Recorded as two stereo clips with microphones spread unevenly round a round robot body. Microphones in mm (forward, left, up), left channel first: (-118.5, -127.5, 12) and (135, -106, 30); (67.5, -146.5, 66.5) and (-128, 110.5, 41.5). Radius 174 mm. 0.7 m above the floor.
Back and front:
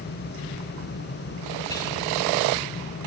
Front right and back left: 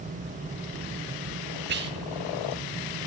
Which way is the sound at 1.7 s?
125° left.